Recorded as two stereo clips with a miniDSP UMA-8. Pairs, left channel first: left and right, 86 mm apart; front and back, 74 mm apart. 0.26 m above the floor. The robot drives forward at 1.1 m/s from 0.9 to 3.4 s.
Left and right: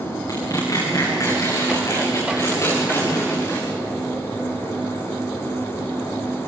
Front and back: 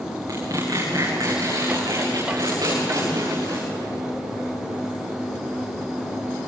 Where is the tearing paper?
140° left, 8.5 m; by 3.7 s 145° left, 11 m.